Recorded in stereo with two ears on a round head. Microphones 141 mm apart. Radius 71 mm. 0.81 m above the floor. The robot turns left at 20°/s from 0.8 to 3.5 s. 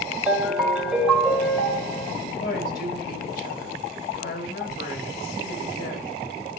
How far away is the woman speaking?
About 1.6 m.